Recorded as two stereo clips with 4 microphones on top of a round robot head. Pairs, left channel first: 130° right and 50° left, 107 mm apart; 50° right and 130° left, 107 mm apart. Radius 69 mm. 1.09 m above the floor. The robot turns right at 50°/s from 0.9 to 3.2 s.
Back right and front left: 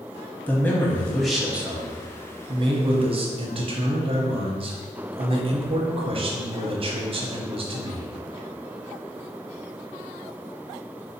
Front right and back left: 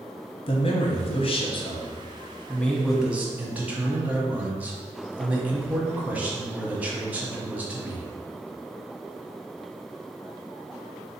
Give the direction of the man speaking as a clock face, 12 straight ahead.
2 o'clock.